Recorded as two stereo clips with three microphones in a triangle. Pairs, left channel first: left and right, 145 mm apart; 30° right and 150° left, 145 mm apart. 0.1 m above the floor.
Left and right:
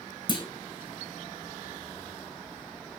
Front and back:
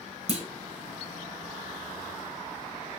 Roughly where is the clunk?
Behind left.